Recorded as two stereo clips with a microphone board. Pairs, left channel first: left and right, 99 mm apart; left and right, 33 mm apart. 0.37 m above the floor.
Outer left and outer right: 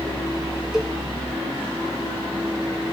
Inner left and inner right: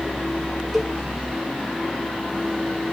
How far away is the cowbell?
About 1.2 m.